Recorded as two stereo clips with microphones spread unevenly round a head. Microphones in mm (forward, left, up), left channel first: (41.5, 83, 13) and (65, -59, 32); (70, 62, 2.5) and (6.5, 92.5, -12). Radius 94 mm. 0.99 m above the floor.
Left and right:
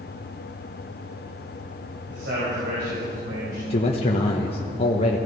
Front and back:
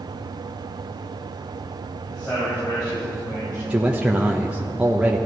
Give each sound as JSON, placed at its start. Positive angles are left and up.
{"t": 2.1, "sound": "a man speaking", "azimuth_deg": -110, "distance_m": 5.0}
{"t": 3.7, "sound": "a man speaking", "azimuth_deg": 95, "distance_m": 1.2}